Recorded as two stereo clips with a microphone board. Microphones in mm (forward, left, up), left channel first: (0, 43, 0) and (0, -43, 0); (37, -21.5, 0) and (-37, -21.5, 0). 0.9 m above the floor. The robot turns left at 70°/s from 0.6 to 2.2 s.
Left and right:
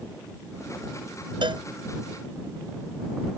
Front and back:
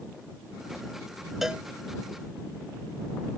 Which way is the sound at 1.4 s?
95° right.